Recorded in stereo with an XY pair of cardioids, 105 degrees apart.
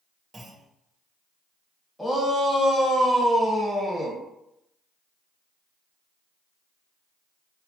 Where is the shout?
10° left, 1.4 m.